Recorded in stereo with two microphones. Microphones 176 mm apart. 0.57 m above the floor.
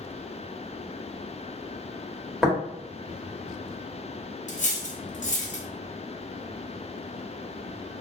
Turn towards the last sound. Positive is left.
turn(degrees=45)  # may be behind; listen again after turning